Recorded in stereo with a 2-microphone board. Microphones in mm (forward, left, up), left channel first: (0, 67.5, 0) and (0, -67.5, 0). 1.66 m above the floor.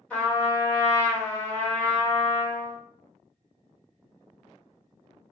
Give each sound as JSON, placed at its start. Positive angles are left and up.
{"t": 0.1, "sound": "a trumpet", "side_deg": 10, "distance_m": 1.4}